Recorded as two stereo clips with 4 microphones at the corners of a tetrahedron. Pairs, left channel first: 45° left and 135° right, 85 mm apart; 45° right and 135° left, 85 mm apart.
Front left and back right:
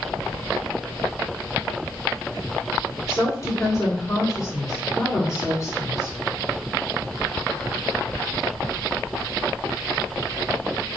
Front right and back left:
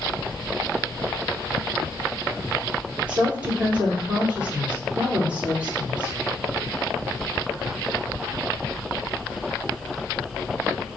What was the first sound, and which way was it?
A woman speaking, 65° left.